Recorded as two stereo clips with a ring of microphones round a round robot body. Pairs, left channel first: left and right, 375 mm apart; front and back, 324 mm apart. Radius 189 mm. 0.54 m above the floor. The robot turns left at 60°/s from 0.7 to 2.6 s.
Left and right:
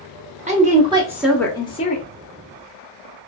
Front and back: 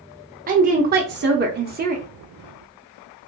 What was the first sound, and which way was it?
A woman speaking, 145° right.